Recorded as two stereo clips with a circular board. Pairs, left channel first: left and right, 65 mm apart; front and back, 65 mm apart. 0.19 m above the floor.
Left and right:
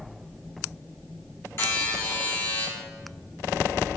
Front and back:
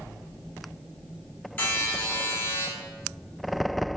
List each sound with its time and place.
1.6 s a buzzer: 50° left, 1.1 m